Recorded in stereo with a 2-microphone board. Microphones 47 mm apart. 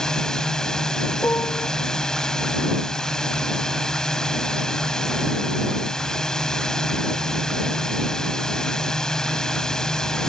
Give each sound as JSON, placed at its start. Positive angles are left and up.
{"t": 0.0, "sound": "a drone", "side_deg": 10}
{"t": 1.2, "sound": "a piano", "side_deg": 65}